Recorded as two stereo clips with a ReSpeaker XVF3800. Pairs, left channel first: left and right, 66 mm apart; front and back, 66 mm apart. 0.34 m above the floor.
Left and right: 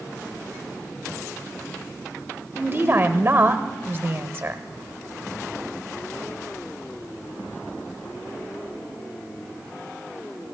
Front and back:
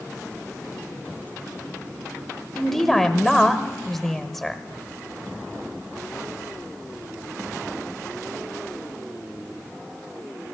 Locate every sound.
2.5 s a woman speaking: 80° right, 1.1 m